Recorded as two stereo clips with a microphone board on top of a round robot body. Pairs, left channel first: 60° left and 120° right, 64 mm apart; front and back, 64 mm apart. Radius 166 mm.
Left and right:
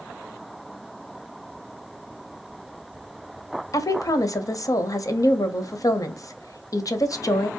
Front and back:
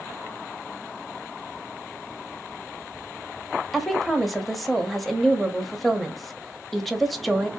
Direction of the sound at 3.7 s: 90° left.